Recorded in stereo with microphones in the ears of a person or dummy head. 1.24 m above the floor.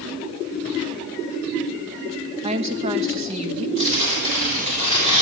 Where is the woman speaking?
30° right (ahead or behind), 1.1 m.